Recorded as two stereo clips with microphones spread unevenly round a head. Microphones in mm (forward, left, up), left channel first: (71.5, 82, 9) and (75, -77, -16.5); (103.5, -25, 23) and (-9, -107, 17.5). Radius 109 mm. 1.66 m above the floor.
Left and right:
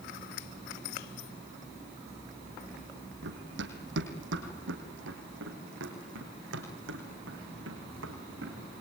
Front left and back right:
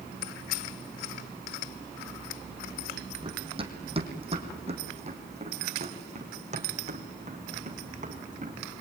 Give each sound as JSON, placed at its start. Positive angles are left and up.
{"t": 3.2, "sound": "running footsteps", "azimuth_deg": -95, "distance_m": 4.0}